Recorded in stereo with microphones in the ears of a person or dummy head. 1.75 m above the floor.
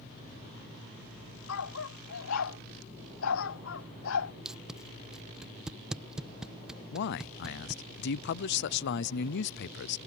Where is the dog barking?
80° left; by 4.3 s 70° left (ahead or behind).